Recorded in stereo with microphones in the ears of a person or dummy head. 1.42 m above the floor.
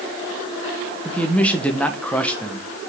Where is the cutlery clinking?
No cutlery clinking in this recording.